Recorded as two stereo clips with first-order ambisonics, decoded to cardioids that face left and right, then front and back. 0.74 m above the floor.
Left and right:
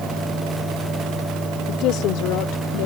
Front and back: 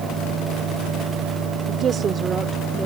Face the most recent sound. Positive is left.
turn(degrees=100)